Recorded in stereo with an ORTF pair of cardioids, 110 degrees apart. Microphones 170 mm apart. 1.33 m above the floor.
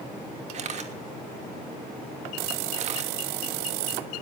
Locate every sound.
0.5 s a camera shutter: 45° right, 2.5 m